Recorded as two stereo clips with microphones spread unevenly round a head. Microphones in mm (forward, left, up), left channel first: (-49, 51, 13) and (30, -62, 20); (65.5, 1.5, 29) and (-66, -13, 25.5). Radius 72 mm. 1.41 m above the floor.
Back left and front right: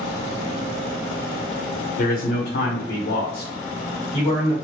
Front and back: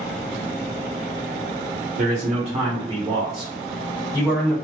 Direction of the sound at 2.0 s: 155° left.